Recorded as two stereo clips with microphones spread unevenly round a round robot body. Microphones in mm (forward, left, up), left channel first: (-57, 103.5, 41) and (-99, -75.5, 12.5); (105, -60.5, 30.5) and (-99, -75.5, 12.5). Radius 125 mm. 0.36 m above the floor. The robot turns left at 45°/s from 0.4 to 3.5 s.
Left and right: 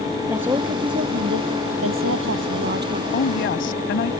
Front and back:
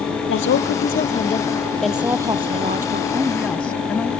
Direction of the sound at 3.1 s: 105° left.